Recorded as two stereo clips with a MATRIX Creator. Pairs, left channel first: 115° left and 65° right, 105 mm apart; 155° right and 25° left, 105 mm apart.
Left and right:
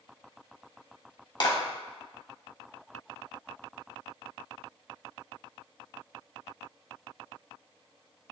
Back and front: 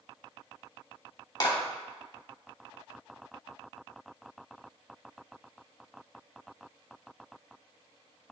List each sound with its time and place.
1.4 s a clap: 155° left, 2.5 m